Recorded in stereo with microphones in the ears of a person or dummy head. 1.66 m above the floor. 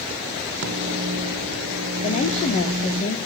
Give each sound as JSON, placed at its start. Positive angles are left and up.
{"t": 0.6, "sound": "a microwave", "side_deg": -65, "distance_m": 1.6}
{"t": 2.0, "sound": "a woman speaking", "side_deg": 40, "distance_m": 1.5}